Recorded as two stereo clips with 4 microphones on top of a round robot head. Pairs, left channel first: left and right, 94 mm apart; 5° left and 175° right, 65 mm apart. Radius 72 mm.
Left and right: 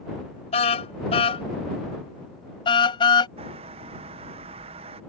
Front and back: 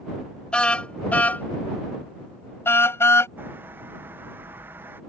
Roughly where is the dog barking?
No dog barking in this recording.